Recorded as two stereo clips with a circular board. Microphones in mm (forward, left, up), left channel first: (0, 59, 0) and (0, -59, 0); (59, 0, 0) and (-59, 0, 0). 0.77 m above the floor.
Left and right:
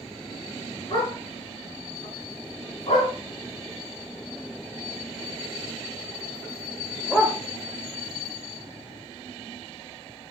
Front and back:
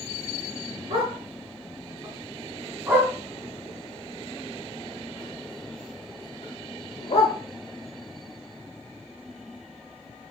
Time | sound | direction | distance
0.9 | a dog barking | 140° left | 4.5 m